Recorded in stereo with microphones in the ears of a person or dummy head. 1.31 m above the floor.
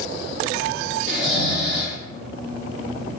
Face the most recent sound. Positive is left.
turn(degrees=5)  # may be behind; listen again after turning